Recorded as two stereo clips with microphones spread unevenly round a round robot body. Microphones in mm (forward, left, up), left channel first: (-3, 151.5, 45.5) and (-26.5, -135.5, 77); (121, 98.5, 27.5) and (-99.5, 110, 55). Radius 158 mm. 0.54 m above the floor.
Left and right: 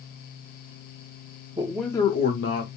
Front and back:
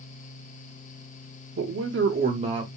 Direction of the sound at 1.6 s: 170° right.